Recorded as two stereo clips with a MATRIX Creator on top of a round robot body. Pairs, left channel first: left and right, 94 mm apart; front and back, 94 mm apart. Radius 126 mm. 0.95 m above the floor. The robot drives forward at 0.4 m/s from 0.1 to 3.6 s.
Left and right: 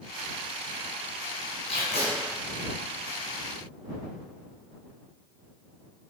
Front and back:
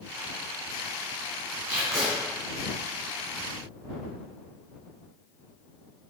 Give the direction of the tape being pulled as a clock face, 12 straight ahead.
8 o'clock.